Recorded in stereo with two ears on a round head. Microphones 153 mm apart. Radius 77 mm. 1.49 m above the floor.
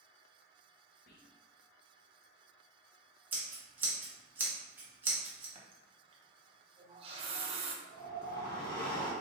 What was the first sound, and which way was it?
Whispering, 65° left (ahead or behind).